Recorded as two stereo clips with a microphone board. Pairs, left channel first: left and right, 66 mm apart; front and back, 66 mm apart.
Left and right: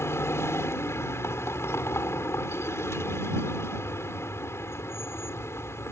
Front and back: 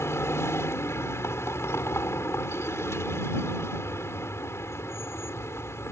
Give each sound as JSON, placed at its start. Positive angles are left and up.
{"t": 0.0, "sound": "a vehicle", "azimuth_deg": 45}